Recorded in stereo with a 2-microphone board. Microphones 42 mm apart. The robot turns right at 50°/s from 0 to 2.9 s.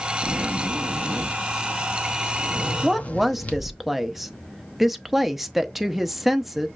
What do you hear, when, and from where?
0.2 s a zipper: 95° right, 0.8 m; by 3.8 s 40° left, 0.8 m
2.8 s a woman speaking: 5° right (ahead or behind), 0.6 m